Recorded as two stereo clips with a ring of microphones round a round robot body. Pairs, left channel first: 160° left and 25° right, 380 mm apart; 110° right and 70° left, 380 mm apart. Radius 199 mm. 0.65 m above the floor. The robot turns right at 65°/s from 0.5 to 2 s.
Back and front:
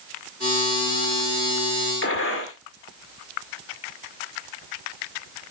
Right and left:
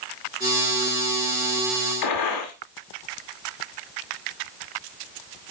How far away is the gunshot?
About 1.8 m.